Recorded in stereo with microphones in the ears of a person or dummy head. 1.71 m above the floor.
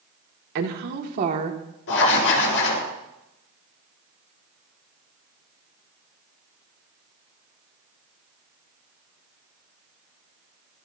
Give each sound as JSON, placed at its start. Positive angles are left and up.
{"t": 0.6, "sound": "a woman speaking", "side_deg": -55, "distance_m": 2.0}
{"t": 1.9, "sound": "writing", "side_deg": 65, "distance_m": 5.5}